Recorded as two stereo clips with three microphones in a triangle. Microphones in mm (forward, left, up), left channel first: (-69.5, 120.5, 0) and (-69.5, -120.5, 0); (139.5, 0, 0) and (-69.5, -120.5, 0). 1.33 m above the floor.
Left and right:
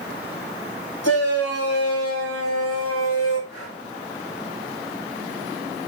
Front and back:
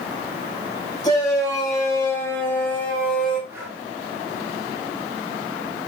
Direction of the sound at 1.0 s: 105° left.